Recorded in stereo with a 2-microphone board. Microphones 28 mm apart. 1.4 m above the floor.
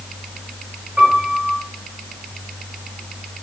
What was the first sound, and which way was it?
A piano, 35° right (ahead or behind).